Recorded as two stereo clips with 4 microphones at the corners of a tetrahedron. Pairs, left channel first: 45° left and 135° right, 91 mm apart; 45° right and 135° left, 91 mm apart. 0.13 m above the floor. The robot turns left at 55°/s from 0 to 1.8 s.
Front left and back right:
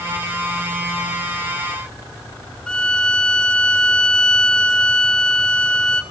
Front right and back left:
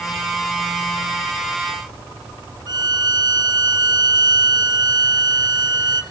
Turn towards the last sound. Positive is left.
turn(degrees=125)